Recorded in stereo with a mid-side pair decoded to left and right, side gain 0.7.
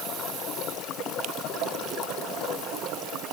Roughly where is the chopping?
No chopping in this recording.